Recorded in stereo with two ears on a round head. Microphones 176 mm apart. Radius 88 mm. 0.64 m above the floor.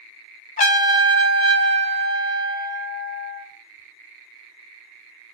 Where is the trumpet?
40° left (ahead or behind), 1.4 m.